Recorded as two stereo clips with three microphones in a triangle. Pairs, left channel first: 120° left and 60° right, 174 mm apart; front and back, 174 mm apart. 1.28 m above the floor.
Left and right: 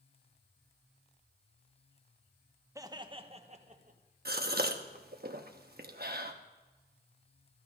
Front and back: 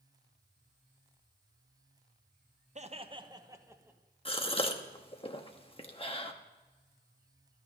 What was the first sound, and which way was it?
Laughter, 130° right.